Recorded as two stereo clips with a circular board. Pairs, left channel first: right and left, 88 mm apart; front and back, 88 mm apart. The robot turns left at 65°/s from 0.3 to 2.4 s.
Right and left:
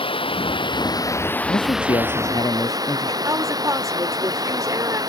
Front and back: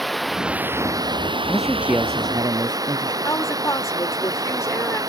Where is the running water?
90° right; by 5.1 s 135° left.